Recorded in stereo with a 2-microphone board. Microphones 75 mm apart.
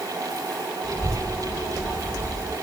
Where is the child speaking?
35° right (ahead or behind), 1.8 m.